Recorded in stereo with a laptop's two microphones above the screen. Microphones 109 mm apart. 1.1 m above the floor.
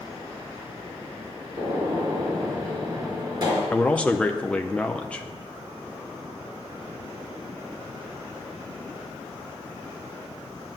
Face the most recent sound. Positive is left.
turn(degrees=10)  # may be behind; listen again after turning